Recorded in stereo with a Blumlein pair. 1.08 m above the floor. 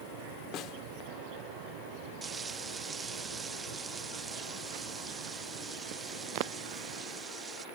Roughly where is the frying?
Ahead.